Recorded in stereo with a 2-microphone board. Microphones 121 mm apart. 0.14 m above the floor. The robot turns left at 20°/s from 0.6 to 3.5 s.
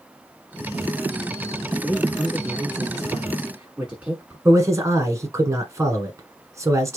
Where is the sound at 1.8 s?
5° left (ahead or behind), 1.6 m; by 4.3 s 10° right (ahead or behind), 1.6 m.